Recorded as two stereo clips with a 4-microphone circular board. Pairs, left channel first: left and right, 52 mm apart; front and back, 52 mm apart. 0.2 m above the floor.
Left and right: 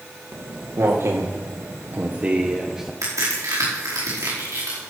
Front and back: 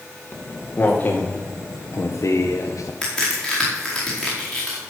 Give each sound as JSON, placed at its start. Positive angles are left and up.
{"t": 0.3, "sound": "footsteps", "azimuth_deg": -65, "distance_m": 3.0}
{"t": 3.0, "sound": "a crack", "azimuth_deg": -85, "distance_m": 5.5}